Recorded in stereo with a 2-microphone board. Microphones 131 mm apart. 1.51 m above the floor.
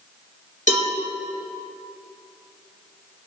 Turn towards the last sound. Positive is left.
turn(degrees=80)